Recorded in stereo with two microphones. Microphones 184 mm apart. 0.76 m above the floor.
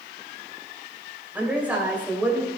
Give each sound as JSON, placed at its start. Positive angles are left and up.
{"t": 1.4, "sound": "a woman speaking", "side_deg": -10, "distance_m": 3.0}